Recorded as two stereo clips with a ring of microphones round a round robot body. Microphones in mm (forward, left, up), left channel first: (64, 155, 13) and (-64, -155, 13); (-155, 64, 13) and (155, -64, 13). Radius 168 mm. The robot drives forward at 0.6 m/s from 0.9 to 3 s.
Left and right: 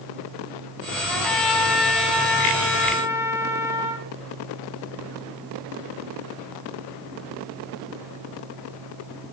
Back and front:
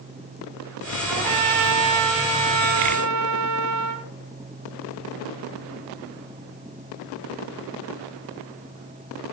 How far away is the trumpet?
About 3 m.